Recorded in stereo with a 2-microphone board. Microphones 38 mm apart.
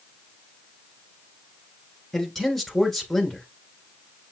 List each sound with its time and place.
2.1 s a man speaking: 5° left (ahead or behind), 1.6 m